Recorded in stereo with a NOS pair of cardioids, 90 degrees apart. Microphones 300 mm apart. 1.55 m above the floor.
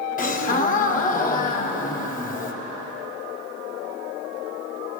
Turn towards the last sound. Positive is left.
turn(degrees=30)